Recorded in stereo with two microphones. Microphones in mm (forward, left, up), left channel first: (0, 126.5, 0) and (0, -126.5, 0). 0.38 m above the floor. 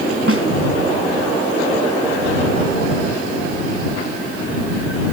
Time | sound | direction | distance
0.3 | a snare drum | 65° right (ahead or behind) | ?